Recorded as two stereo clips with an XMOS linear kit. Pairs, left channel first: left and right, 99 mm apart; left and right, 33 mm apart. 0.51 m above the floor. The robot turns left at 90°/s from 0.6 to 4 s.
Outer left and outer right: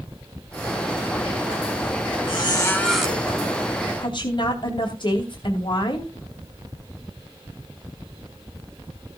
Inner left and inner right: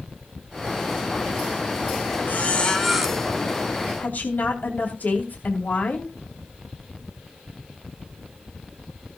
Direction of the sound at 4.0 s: 55° left (ahead or behind).